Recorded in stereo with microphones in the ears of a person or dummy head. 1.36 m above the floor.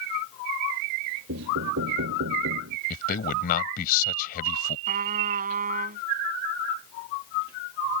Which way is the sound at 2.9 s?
45° left (ahead or behind).